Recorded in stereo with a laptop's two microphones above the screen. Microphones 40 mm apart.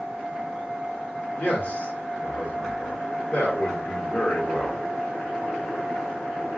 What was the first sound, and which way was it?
A man speaking, 60° left (ahead or behind).